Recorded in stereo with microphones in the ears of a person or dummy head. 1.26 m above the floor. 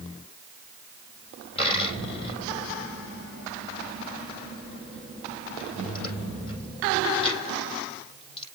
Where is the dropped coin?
35° left (ahead or behind), 5 m.